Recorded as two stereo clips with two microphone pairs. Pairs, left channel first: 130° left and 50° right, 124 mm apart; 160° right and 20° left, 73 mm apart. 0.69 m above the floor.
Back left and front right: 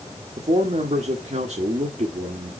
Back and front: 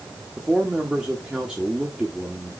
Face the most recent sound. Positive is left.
turn(degrees=-60)